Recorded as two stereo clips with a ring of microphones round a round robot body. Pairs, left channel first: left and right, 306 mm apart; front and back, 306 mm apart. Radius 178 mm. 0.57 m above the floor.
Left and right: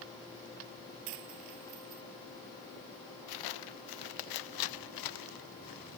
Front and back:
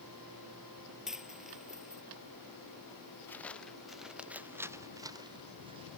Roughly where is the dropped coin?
Right.